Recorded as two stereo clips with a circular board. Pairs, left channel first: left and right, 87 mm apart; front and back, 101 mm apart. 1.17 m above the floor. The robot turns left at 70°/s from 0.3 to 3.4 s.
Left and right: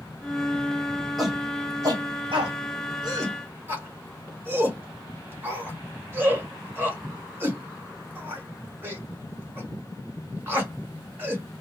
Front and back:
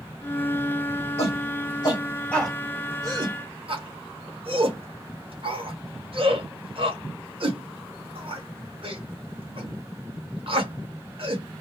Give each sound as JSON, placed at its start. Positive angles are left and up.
{"t": 1.2, "sound": "a shout", "azimuth_deg": 0, "distance_m": 1.9}